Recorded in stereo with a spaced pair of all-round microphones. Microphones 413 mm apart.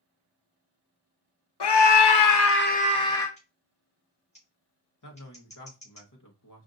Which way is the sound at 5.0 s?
45° left (ahead or behind).